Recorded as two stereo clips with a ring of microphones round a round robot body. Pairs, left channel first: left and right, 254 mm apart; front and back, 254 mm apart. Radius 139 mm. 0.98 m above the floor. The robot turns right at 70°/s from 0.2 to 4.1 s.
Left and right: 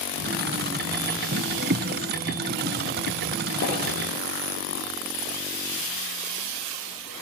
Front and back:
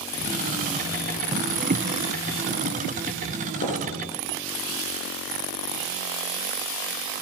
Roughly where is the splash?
Ahead left.